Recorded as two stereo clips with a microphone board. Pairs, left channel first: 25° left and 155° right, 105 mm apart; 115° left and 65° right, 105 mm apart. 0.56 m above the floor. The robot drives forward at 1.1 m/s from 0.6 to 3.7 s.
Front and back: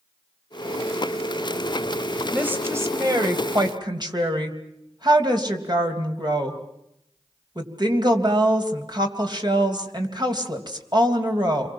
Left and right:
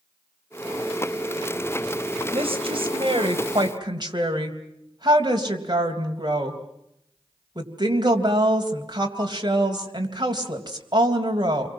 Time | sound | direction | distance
2.3 | a woman speaking | 85° right | 3 m